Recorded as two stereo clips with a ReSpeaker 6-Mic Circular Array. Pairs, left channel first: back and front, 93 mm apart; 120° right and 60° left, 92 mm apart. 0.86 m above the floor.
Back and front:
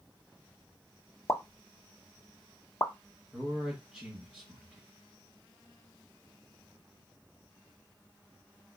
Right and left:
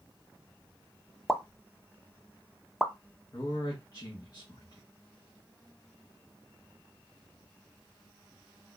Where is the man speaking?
80° right, 1.2 m.